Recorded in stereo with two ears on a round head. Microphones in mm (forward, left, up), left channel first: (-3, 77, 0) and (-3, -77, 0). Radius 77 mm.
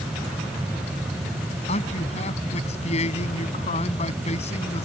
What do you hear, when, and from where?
1.7 s a man speaking: 40° left (ahead or behind)